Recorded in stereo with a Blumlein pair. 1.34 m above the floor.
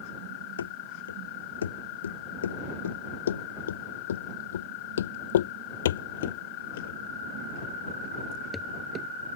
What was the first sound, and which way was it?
Running footsteps, 70° left.